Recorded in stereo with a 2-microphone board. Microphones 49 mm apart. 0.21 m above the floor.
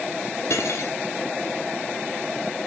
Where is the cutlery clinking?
70° left (ahead or behind), 2 m.